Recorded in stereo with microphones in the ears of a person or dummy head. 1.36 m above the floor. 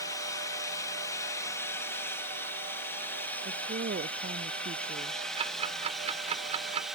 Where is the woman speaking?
45° right (ahead or behind).